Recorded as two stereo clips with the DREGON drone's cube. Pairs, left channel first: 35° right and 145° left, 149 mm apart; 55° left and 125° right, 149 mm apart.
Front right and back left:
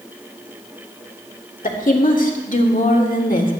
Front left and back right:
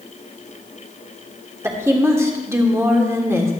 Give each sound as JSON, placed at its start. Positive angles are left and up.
{"t": 1.6, "sound": "a woman speaking", "azimuth_deg": -55, "distance_m": 1.5}